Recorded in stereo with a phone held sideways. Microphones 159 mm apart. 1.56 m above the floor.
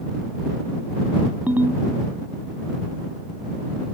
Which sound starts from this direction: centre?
A ringtone, at 1.5 s.